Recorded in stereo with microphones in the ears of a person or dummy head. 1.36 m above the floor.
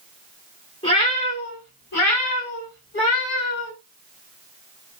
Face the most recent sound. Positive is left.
turn(degrees=70)  # may be behind; listen again after turning